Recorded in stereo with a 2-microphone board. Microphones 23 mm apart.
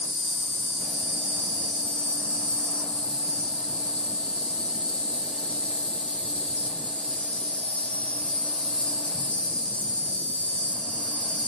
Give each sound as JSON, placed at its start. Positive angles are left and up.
{"t": 0.0, "sound": "an insect", "side_deg": 55, "distance_m": 2.0}